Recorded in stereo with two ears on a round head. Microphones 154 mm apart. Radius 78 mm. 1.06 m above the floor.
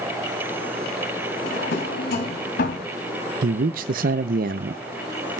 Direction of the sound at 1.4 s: 60° left (ahead or behind).